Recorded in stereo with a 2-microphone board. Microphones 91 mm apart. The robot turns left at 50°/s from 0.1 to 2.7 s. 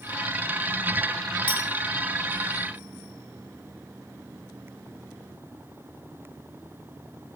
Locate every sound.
1.5 s a clink: 80° left, 8 m; by 1.6 s 70° left (ahead or behind), 8 m